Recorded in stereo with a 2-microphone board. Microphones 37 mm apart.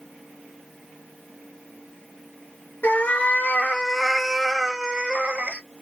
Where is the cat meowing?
55° left (ahead or behind), 0.9 m; by 5.6 s 45° right (ahead or behind), 1.1 m.